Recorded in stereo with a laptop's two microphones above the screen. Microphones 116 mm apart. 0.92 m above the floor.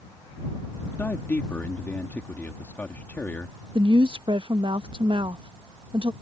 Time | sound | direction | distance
0.9 | a man speaking | 15° left (ahead or behind) | ?
3.8 | a woman speaking | 45° right (ahead or behind) | ?